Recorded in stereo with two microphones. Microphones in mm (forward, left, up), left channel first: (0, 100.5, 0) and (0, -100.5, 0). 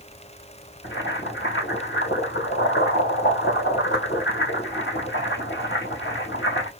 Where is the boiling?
65° left (ahead or behind), 2 m.